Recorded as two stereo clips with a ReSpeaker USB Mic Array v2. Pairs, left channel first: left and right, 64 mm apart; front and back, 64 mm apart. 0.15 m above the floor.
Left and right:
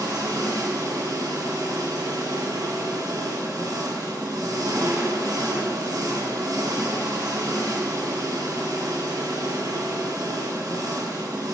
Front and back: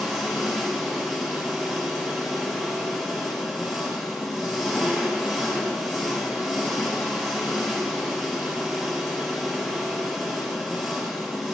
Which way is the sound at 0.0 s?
90° right.